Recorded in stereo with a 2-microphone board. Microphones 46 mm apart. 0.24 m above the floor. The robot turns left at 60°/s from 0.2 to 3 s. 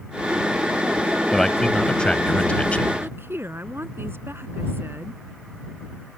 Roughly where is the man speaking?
Centre.